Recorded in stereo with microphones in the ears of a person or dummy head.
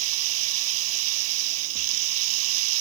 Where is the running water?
85° right.